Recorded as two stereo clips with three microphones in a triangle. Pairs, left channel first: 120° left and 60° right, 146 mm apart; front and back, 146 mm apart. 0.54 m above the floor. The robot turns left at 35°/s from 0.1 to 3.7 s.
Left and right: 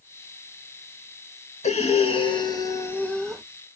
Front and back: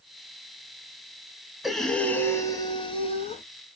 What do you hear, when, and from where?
1.6 s breathing: 90° left, 0.7 m; by 3.4 s 30° left, 0.7 m